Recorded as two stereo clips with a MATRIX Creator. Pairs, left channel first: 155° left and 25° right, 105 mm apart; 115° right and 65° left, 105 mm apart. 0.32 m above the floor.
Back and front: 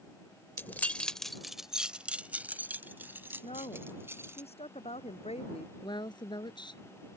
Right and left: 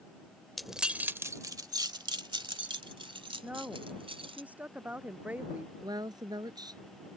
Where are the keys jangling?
160° left; by 4.4 s 45° left.